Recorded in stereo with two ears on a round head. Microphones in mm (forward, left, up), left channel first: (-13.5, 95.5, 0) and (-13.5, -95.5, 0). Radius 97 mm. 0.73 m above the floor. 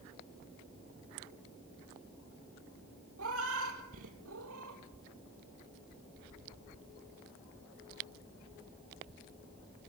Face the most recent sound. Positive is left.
turn(degrees=-75)  # may be behind; listen again after turning